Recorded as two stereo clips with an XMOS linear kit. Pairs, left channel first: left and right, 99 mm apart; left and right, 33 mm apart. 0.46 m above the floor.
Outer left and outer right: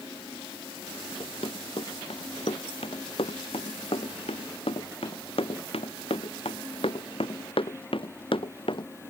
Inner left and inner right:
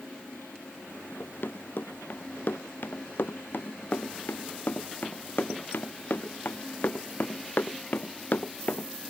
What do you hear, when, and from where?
1.2 s running footsteps: 80° left; by 8.9 s 65° left (ahead or behind)